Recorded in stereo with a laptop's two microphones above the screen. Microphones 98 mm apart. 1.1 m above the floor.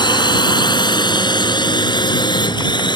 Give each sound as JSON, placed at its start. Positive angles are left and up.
{"t": 0.0, "sound": "a drone", "side_deg": 50}